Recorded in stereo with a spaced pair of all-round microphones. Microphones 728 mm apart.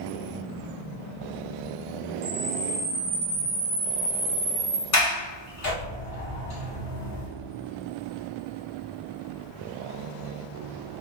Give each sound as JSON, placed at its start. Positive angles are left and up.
{"t": 2.2, "sound": "a camera shutter", "side_deg": -60, "distance_m": 0.7}
{"t": 4.9, "sound": "a sliding door", "side_deg": 45, "distance_m": 1.7}